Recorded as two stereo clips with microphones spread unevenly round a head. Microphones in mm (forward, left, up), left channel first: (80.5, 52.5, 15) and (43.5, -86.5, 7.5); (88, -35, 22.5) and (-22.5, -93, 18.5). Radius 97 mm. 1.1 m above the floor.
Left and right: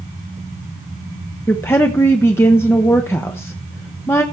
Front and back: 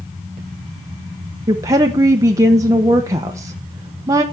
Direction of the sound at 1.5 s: 150° left.